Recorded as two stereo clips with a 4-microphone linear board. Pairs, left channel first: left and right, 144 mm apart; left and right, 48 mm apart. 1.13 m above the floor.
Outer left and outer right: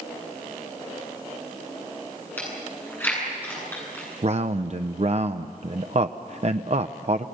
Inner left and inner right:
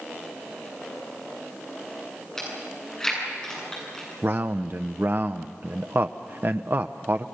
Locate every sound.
2.4 s chewing: 15° left (ahead or behind), 9 m
4.2 s a man speaking: 50° right (ahead or behind), 0.6 m